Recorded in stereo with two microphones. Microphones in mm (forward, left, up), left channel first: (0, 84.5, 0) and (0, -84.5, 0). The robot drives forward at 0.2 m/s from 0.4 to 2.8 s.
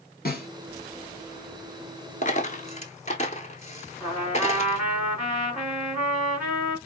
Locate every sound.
0.2 s a snare drum: 60° left (ahead or behind), 1.3 m
2.2 s a dropped coin: 45° left (ahead or behind), 0.6 m; by 4.8 s 40° left (ahead or behind), 0.7 m
4.0 s a trumpet: 5° right (ahead or behind), 1.8 m